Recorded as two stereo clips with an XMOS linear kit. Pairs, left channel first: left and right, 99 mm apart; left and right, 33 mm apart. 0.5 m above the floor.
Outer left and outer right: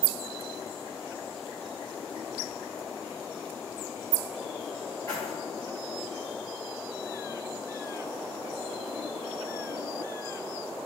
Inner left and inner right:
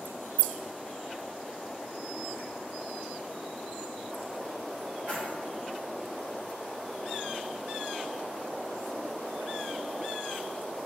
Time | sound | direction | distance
5.1 | keys jangling | 45° right (ahead or behind) | 1.9 m